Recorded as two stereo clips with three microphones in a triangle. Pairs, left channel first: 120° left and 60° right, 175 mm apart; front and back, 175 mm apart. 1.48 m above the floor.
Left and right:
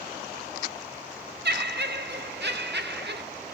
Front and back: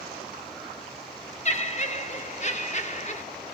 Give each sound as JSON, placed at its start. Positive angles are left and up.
{"t": 1.4, "sound": "laughter", "azimuth_deg": -50, "distance_m": 0.7}